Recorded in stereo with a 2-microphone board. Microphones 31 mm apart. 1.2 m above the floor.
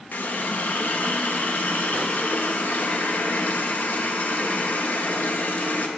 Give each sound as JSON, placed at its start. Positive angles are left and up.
{"t": 0.1, "sound": "a running tap", "side_deg": 70, "distance_m": 1.0}